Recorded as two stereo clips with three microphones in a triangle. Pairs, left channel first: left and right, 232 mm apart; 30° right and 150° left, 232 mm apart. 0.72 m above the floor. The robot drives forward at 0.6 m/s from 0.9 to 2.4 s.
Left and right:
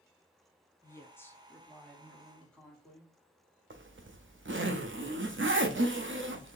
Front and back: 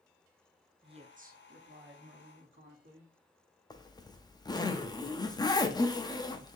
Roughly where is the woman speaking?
Behind left.